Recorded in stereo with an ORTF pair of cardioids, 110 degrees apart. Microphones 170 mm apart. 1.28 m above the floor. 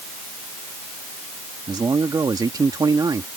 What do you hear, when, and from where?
1.7 s a man speaking: 25° right